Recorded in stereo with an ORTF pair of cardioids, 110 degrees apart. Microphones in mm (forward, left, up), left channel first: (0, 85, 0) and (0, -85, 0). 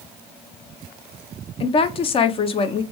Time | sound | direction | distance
1.6 | a woman speaking | 35° left | 0.6 m